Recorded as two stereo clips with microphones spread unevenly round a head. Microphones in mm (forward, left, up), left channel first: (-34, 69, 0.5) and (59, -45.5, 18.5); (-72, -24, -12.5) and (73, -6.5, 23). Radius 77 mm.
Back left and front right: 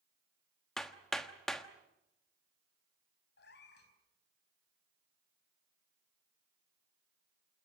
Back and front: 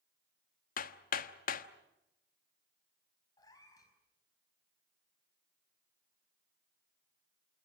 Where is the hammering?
140° right, 1.2 m.